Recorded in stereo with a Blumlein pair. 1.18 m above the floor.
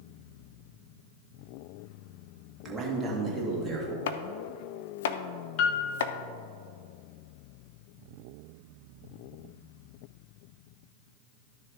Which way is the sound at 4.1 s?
60° left.